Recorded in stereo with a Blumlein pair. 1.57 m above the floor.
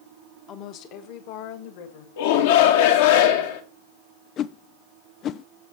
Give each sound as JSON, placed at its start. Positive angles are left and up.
{"t": 0.5, "sound": "a woman speaking", "azimuth_deg": 30, "distance_m": 1.3}
{"t": 2.2, "sound": "a shout", "azimuth_deg": 55, "distance_m": 1.8}
{"t": 4.4, "sound": "a whoosh", "azimuth_deg": 30, "distance_m": 0.5}